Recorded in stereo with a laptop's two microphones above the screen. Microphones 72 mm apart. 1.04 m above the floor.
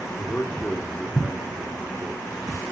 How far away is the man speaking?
About 2.5 m.